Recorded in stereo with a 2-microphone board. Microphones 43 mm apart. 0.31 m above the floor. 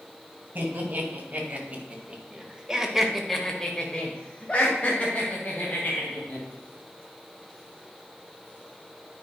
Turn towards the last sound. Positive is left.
turn(degrees=45)  # may be behind; listen again after turning